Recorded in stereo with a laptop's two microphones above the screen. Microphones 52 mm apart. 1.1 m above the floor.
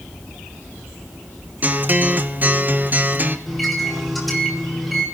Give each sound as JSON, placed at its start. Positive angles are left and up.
{"t": 1.6, "sound": "a guitar", "side_deg": -35, "distance_m": 0.8}
{"t": 3.5, "sound": "a microwave", "side_deg": 0, "distance_m": 3.5}